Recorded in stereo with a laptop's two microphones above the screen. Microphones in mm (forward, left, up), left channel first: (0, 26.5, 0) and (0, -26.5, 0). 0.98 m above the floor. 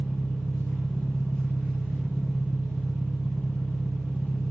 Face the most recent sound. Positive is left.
turn(degrees=15)  # may be behind; listen again after turning